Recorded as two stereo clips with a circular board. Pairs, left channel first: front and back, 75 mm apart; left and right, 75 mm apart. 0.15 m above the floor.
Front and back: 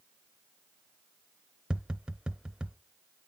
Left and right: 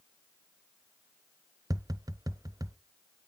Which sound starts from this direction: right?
Tapping, at 1.7 s.